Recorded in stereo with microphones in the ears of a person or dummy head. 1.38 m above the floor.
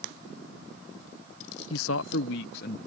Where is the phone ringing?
I don't hear a phone ringing.